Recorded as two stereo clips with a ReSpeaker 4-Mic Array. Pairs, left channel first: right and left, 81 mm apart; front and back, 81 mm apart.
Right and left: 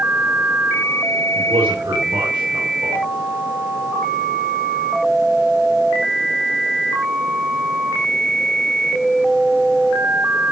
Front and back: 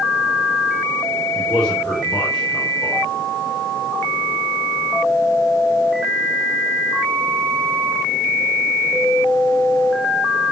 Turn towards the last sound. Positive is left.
turn(degrees=85)